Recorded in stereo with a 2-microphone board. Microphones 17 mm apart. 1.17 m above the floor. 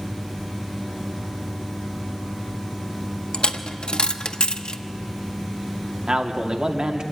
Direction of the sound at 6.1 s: 55° right (ahead or behind).